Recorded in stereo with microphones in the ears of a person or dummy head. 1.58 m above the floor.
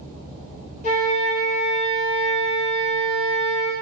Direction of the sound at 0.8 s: 35° left (ahead or behind).